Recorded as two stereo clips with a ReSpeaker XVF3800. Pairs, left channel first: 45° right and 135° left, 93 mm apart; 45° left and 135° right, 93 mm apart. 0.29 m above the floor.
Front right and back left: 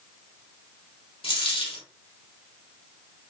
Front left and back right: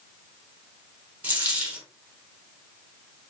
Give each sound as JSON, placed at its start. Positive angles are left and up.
{"t": 1.2, "sound": "a dropped coin", "azimuth_deg": -65, "distance_m": 2.5}